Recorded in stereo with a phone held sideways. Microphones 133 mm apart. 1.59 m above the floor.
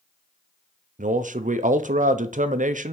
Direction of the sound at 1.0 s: 85° right.